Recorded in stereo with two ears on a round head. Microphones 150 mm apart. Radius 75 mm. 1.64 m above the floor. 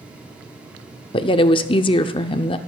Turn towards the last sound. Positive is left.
turn(degrees=30)  # may be behind; listen again after turning